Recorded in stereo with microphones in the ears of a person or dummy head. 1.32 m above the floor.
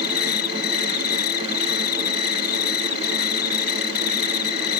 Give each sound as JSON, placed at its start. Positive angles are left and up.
{"t": 0.0, "sound": "an insect", "side_deg": 60}